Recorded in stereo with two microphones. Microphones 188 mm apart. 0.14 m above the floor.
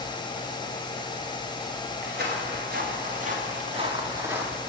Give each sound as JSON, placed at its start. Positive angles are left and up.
{"t": 2.0, "sound": "footsteps", "side_deg": -60, "distance_m": 4.0}